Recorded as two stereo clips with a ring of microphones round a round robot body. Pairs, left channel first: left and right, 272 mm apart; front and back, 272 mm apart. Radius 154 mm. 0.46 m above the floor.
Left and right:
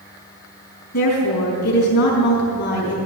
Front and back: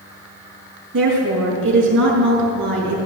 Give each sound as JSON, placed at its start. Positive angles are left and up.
{"t": 0.9, "sound": "a woman speaking", "azimuth_deg": 130, "distance_m": 5.0}